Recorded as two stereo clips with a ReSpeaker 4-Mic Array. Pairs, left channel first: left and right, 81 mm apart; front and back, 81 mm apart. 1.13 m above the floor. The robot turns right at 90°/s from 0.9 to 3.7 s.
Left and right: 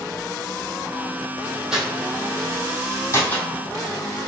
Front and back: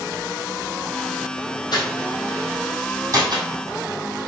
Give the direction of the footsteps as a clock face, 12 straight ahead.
12 o'clock.